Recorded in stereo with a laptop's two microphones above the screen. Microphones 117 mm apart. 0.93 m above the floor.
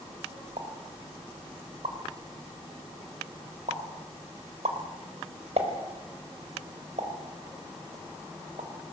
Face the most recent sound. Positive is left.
turn(degrees=-70)  # may be behind; listen again after turning